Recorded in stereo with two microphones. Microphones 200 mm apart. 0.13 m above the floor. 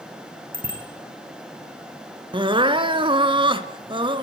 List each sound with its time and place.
0.5 s a bicycle bell: 45° right (ahead or behind), 5.5 m
2.3 s crying: 25° right (ahead or behind), 1.1 m